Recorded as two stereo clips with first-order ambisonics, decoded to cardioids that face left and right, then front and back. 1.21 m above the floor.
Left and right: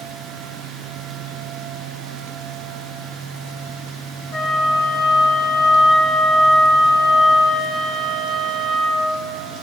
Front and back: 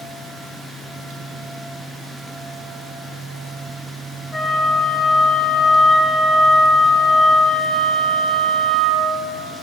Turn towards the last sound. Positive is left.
turn(degrees=60)